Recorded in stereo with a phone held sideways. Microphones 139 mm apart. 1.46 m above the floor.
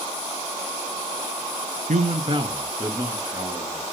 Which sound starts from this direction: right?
A man speaking, at 1.9 s.